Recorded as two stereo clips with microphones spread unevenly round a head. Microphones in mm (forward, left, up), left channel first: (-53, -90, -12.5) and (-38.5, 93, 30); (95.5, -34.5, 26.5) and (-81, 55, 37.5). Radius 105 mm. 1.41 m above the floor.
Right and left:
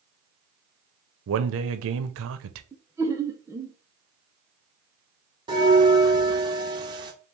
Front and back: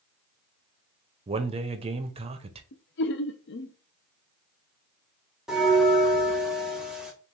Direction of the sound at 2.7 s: 10° left.